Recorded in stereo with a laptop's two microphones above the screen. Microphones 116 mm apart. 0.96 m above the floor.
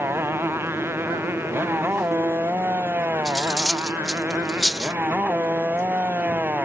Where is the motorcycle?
20° right (ahead or behind); by 6.7 s 15° right (ahead or behind).